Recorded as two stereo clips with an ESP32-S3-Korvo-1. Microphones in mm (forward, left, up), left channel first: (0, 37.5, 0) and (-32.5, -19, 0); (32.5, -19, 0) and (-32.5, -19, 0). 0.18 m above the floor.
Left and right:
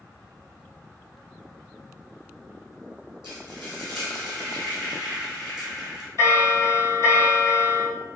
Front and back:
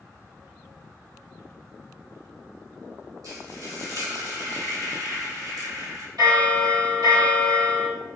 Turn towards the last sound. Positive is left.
turn(degrees=-160)